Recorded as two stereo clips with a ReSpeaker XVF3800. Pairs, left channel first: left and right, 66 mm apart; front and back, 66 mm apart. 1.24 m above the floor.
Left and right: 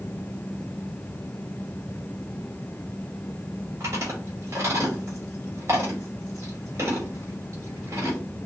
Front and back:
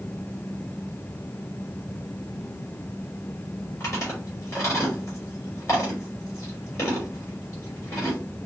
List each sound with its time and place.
3.8 s chewing: 45° right, 3.5 m